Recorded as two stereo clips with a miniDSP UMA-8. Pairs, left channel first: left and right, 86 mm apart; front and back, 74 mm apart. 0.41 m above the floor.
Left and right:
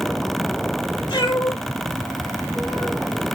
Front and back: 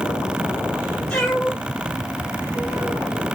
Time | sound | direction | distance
1.1 | a cat meowing | 80° left | 3 m